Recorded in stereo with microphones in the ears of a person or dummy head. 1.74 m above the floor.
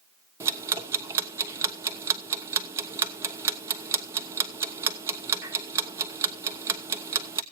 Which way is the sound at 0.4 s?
15° right (ahead or behind).